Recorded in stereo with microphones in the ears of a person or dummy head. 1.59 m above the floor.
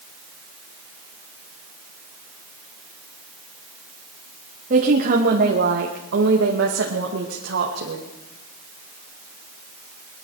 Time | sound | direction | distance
4.7 | a woman speaking | 45° right (ahead or behind) | 2 m